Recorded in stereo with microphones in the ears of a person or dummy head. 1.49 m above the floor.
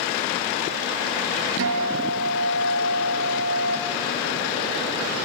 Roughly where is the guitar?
Right.